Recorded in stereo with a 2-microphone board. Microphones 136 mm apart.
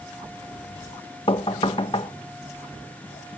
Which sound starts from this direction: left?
Knocking, at 1.3 s.